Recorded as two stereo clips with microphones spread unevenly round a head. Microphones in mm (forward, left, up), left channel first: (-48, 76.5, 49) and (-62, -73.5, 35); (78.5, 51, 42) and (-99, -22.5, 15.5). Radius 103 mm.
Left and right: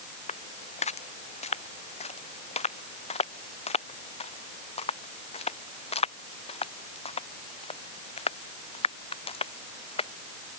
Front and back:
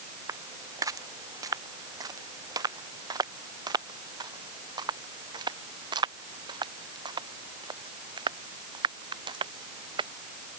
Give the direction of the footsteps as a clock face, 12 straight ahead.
8 o'clock.